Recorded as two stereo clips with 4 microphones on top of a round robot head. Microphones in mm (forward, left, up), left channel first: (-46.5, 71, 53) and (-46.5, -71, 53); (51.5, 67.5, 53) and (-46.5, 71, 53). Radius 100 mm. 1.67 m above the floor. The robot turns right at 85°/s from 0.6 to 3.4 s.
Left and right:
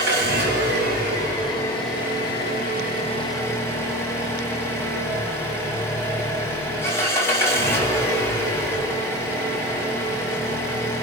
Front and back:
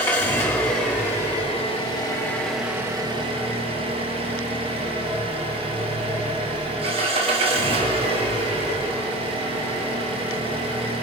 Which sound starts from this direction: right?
An engine running, at 0.0 s.